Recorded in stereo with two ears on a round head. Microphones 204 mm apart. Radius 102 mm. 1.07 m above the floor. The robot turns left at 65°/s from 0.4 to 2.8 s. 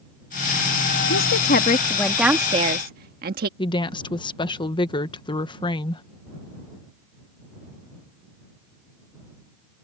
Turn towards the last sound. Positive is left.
turn(degrees=20)  # may be behind; listen again after turning